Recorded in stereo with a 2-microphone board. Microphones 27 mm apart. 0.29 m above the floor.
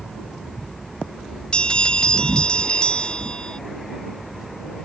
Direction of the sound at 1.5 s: 35° left (ahead or behind).